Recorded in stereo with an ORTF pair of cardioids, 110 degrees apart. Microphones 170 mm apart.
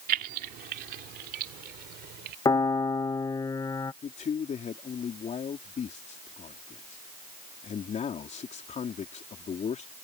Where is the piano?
20° left.